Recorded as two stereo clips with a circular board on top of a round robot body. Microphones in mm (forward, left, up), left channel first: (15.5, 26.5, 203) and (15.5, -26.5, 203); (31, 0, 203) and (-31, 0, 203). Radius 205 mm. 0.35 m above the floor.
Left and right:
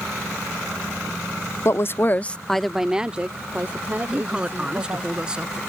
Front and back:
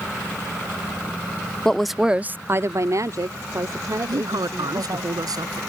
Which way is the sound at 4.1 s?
165° right.